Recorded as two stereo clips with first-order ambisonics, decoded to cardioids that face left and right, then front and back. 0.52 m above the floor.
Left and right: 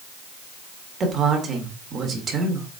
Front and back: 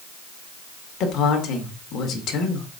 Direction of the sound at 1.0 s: 35° right.